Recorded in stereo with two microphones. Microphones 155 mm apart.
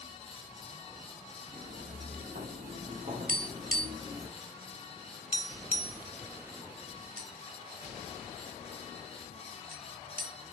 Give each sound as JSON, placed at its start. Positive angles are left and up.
{"t": 1.5, "sound": "footsteps", "side_deg": -70, "distance_m": 3.0}
{"t": 3.3, "sound": "tapping", "side_deg": -65, "distance_m": 0.9}